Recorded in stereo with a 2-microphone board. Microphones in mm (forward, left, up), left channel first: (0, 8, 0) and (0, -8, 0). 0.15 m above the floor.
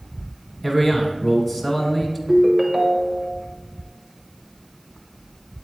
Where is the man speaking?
10° left (ahead or behind), 1.2 m.